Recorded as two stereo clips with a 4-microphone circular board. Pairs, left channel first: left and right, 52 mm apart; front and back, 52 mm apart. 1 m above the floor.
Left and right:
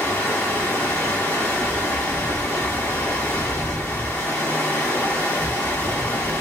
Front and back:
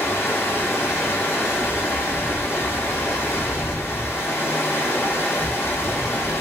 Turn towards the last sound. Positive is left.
turn(degrees=40)